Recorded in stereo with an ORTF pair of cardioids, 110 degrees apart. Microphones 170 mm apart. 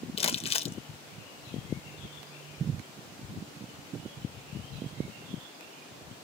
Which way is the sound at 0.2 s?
35° left.